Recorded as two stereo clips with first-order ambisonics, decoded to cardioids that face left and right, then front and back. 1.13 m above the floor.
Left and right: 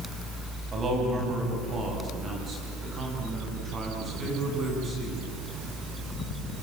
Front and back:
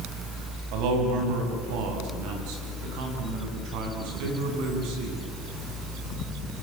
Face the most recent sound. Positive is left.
turn(degrees=-160)